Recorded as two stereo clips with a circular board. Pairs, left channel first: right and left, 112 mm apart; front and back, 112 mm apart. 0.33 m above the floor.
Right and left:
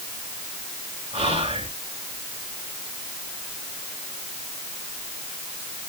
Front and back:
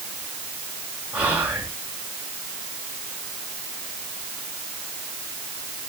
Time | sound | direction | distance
1.1 | whispering | 105° left | 4.5 m